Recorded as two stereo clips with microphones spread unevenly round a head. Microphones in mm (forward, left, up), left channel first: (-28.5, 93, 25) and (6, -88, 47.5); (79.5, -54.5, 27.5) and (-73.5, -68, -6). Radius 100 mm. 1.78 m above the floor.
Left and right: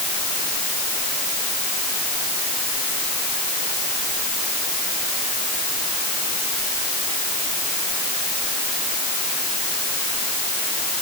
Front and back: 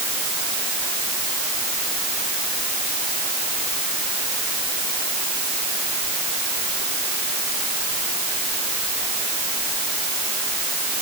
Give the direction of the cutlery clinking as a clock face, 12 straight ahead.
No cutlery clinking in this recording.